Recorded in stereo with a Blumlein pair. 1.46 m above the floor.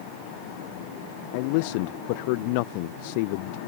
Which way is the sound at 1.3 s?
45° left.